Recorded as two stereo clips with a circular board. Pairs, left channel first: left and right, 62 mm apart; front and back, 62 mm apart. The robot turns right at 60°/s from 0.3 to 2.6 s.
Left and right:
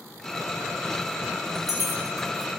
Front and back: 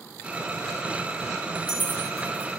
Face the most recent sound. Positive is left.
turn(degrees=-130)